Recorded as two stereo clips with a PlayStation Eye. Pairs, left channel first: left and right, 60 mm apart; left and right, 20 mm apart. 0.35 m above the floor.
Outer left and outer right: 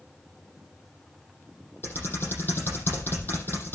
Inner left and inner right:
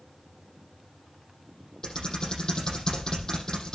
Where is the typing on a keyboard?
40° left (ahead or behind), 7 m.